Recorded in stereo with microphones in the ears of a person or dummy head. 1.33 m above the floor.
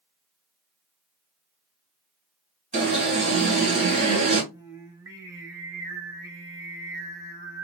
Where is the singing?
15° right (ahead or behind), 1.1 m.